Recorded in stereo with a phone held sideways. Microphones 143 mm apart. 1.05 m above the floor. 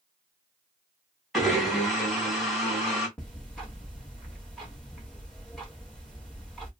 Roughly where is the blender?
Centre.